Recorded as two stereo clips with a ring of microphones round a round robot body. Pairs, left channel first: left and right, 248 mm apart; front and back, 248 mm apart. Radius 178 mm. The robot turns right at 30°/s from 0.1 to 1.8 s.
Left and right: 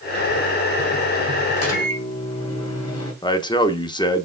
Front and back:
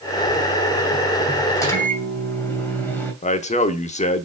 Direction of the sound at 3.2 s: 30° left.